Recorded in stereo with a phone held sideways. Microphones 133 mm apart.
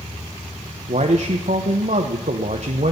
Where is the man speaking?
60° right (ahead or behind), 1.0 m.